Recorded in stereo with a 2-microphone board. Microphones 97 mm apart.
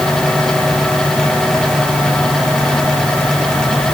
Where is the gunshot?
No gunshot in this recording.